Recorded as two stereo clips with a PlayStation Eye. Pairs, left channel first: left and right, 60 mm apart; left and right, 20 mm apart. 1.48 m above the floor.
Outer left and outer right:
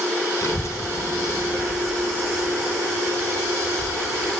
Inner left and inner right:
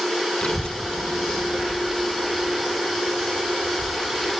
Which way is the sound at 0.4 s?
55° left (ahead or behind).